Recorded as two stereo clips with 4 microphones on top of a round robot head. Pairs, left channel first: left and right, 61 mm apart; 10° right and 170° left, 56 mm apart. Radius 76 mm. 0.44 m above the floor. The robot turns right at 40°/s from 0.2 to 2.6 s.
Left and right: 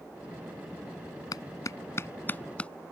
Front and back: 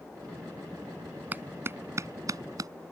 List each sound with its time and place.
1.3 s a clap: 110° left; by 2.7 s 160° left